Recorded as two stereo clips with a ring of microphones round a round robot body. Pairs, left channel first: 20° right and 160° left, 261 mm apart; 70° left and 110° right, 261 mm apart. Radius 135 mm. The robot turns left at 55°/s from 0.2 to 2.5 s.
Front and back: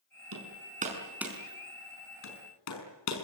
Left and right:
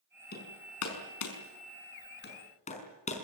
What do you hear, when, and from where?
0.3 s hammering: 125° left, 5.5 m; by 3.2 s straight ahead, 5.5 m